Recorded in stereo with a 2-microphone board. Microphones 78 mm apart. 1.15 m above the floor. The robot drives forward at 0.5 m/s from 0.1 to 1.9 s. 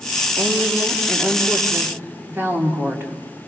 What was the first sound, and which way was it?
A woman speaking, 35° right (ahead or behind).